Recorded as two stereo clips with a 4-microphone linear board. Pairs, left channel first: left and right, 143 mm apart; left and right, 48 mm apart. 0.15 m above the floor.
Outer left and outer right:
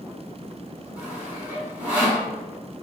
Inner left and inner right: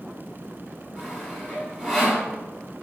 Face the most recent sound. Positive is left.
turn(degrees=-10)  # may be behind; listen again after turning